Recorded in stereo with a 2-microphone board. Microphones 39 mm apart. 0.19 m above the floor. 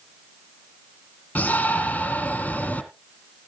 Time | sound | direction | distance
1.4 | a shout | 30° left (ahead or behind) | 1.2 m